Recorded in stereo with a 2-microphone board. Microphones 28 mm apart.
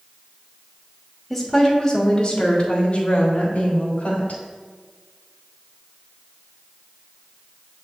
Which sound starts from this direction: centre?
A woman speaking, at 1.3 s.